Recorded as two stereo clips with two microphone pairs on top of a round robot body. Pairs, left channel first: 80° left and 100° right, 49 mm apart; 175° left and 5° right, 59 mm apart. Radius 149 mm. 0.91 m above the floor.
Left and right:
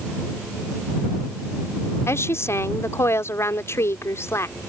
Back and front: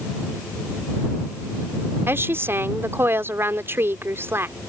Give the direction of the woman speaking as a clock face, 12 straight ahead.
10 o'clock.